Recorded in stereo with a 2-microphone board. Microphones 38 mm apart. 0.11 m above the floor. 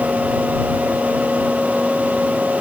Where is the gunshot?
No gunshot in this recording.